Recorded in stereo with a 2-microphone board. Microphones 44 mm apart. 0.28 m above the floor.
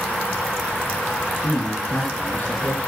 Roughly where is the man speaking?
Left.